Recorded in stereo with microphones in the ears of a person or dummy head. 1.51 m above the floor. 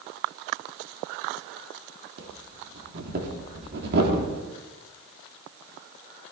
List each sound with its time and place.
2.2 s breathing: 60° right (ahead or behind), 3 m